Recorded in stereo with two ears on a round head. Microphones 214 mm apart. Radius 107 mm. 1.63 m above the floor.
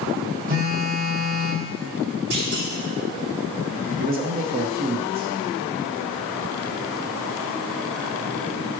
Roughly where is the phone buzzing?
Right.